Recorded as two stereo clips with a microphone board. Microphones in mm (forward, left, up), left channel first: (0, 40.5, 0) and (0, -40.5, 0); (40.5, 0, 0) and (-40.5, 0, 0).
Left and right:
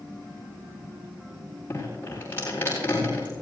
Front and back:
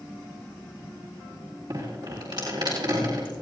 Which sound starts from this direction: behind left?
Dripping, at 1.7 s.